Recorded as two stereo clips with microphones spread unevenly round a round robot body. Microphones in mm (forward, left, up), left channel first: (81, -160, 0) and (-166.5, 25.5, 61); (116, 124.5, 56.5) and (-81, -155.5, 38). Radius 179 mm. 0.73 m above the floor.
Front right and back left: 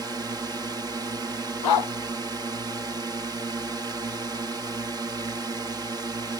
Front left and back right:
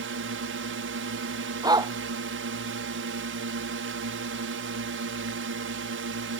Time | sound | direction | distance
0.0 | a drone | 130° right | ?
1.6 | a dog barking | 45° right | ?